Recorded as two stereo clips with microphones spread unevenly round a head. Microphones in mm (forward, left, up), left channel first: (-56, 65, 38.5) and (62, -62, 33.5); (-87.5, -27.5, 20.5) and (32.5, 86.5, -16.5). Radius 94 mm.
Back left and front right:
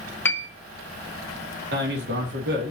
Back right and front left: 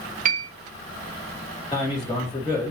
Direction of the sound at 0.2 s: 55° left.